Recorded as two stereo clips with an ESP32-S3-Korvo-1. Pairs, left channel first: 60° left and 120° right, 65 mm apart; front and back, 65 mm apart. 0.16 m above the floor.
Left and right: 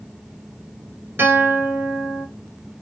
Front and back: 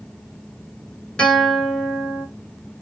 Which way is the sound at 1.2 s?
75° right.